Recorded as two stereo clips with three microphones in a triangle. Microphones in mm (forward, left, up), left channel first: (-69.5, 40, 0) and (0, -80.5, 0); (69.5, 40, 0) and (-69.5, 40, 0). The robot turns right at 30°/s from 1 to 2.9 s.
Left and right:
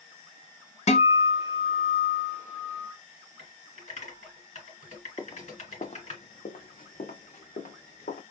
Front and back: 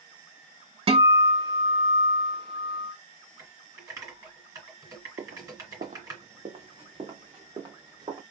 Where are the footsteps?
170° right, 0.5 m; by 8.2 s 120° left, 1.7 m.